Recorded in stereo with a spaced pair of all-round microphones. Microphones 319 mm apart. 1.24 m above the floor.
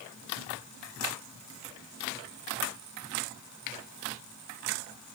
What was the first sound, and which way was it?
Only background noise.